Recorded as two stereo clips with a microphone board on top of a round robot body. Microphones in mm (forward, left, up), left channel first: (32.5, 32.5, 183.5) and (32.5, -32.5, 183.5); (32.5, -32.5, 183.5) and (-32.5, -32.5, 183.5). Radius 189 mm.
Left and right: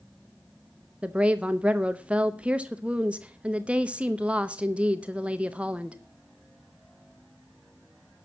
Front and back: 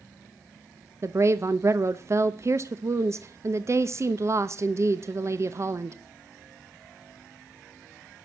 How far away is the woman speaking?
About 0.9 m.